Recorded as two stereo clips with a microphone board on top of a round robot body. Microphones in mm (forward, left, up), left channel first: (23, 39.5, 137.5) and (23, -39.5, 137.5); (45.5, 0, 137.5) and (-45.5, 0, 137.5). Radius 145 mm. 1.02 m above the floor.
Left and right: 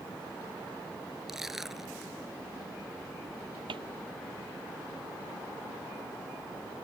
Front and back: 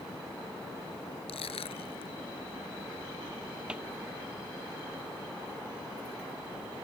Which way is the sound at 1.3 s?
5° right.